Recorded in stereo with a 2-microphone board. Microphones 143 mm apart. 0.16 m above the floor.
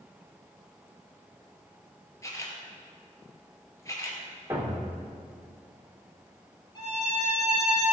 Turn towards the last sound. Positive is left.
turn(degrees=30)  # may be behind; listen again after turning